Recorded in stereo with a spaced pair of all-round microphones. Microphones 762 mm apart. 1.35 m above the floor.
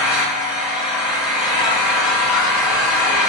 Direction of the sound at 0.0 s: Centre (ahead or behind).